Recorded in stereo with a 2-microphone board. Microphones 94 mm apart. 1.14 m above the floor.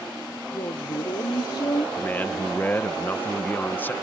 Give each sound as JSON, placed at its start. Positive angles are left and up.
{"t": 0.5, "sound": "a woman speaking", "side_deg": 70}
{"t": 2.0, "sound": "a man speaking", "side_deg": 20}